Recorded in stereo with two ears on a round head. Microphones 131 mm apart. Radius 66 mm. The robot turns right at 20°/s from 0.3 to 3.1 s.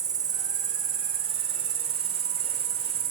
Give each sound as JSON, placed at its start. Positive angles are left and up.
{"t": 0.0, "sound": "an insect", "azimuth_deg": -125, "distance_m": 1.0}